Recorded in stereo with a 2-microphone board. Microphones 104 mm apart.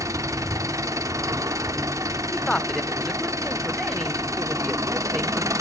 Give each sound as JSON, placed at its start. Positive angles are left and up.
{"t": 0.0, "sound": "an engine running", "side_deg": -30, "distance_m": 1.0}
{"t": 2.3, "sound": "a man speaking", "side_deg": 0, "distance_m": 0.8}